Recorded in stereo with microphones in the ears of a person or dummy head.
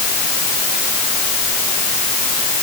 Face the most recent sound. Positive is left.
No sound to turn to.